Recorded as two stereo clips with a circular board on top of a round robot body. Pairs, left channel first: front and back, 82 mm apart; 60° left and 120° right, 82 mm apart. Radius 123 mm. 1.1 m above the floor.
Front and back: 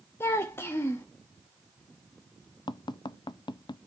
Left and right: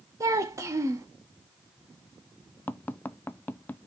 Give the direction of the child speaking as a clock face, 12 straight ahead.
2 o'clock.